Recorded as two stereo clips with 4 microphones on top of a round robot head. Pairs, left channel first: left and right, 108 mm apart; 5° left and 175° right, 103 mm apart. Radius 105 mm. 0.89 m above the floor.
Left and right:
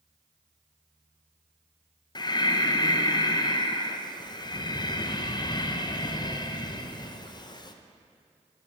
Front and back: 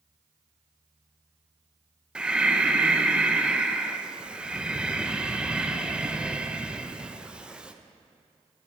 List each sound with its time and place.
2.1 s breathing: 110° left, 0.9 m